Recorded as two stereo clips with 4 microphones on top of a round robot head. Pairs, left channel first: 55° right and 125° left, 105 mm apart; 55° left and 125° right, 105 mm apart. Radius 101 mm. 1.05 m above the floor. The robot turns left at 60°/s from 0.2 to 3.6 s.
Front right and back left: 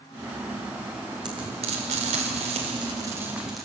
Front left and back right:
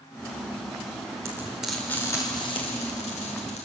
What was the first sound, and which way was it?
Frying, 170° left.